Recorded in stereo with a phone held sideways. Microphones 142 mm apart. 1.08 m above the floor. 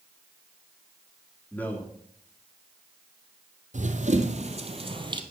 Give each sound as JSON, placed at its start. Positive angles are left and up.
{"t": 1.5, "sound": "a man speaking", "side_deg": 10, "distance_m": 1.8}
{"t": 3.7, "sound": "running footsteps", "side_deg": -60, "distance_m": 1.9}